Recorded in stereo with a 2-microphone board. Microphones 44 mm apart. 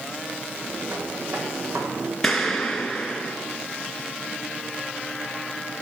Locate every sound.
0.6 s footsteps: 80° right, 4 m; by 2.1 s 85° right, 5 m
2.2 s an explosion: 5° left (ahead or behind), 2.5 m